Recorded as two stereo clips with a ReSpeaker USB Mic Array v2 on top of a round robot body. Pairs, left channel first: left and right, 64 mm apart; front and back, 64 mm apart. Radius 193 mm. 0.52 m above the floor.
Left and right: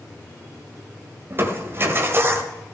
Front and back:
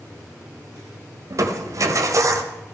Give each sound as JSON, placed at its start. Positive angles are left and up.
{"t": 1.3, "sound": "crushing", "azimuth_deg": -145, "distance_m": 1.5}